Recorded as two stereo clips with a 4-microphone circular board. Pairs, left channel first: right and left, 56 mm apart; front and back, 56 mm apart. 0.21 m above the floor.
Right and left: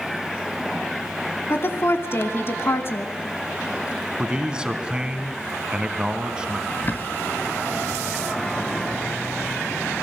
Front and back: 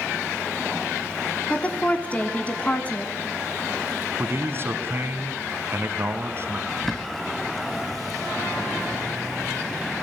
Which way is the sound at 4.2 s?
160° left.